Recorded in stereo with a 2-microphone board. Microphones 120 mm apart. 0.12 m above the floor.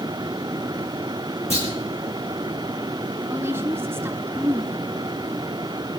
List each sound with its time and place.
1.5 s a clunk: 60° left (ahead or behind), 5.5 m
3.3 s a woman speaking: 20° right (ahead or behind), 1.6 m